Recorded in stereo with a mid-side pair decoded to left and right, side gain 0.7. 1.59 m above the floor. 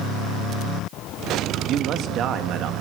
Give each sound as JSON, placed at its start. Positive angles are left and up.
{"t": 1.7, "sound": "a man speaking", "azimuth_deg": -50, "distance_m": 2.0}